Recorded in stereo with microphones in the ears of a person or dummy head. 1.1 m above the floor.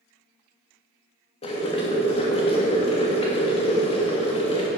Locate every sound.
1.4 s boiling: 30° left (ahead or behind), 1.4 m